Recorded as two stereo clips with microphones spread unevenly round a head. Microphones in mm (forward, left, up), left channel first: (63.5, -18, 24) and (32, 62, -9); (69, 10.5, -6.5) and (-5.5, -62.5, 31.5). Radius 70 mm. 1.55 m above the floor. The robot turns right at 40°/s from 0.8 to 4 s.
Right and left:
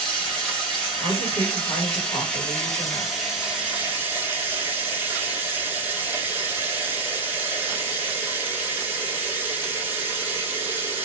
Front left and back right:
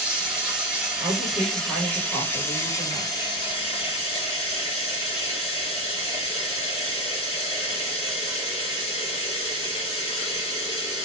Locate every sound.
0.0 s running water: 105° right, 0.9 m; by 11.1 s 25° left, 0.9 m
1.0 s a woman speaking: 90° right, 1.2 m; by 3.1 s 5° right, 1.2 m